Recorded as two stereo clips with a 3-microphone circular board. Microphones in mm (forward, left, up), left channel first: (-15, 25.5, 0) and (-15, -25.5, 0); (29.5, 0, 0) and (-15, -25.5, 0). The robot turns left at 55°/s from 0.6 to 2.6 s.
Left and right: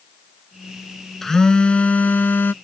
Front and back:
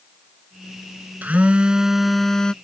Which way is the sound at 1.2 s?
170° left.